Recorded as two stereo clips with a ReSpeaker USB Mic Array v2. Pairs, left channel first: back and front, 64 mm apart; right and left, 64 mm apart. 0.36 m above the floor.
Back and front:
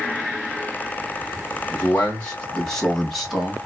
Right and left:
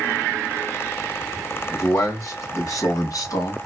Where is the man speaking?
120° right, 1.9 m; by 3.6 s 80° right, 2 m.